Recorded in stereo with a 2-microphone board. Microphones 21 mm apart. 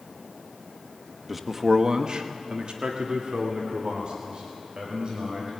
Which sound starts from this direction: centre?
A man speaking, at 1.3 s.